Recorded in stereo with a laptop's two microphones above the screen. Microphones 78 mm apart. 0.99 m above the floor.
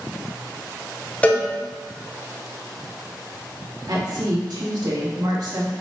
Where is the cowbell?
20° left (ahead or behind), 0.7 m.